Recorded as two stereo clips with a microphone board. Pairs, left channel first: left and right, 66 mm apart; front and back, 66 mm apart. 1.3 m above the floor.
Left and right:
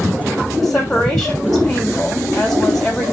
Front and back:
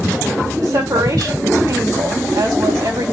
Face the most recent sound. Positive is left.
turn(degrees=175)